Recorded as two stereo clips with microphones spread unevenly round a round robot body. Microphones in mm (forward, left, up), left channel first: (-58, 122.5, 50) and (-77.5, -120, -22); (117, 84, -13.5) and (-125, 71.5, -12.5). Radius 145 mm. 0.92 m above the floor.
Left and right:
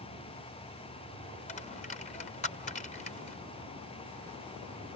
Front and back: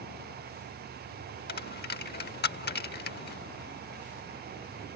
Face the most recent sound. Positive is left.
turn(degrees=40)